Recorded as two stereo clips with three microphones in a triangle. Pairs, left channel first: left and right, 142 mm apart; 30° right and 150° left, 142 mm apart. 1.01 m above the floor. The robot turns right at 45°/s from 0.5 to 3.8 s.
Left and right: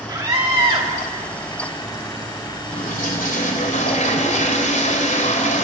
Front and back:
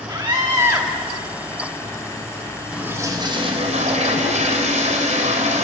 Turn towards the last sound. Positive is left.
turn(degrees=115)